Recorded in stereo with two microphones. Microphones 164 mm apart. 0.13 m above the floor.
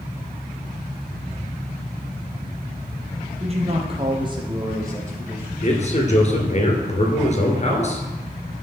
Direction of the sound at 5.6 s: 45° left (ahead or behind).